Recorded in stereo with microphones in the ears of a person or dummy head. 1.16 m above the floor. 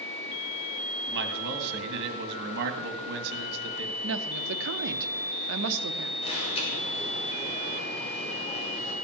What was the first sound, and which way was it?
A man speaking, 55° right (ahead or behind).